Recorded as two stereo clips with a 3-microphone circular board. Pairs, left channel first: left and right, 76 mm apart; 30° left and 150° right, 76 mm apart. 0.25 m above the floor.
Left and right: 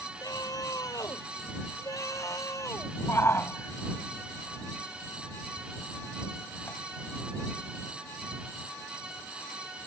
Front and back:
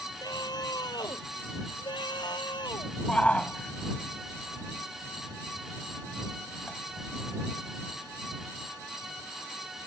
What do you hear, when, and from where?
0.2 s a scream: 55° left; by 2.9 s 40° left
3.1 s a shout: 90° left